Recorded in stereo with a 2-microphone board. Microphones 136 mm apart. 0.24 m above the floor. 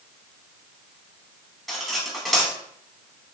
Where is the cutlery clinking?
Centre (ahead or behind), 1.0 m.